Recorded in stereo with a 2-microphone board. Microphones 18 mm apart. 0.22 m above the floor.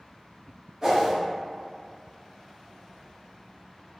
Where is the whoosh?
15° right (ahead or behind), 1.2 m.